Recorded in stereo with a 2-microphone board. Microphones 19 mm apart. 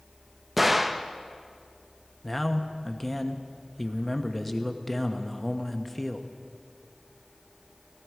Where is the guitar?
I don't hear a guitar.